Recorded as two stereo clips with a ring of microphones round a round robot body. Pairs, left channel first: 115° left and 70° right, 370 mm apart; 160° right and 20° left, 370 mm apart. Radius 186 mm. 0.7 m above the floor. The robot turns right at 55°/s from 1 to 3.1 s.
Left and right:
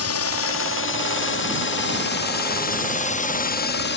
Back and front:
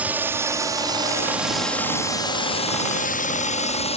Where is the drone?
105° left; by 4.0 s 140° left.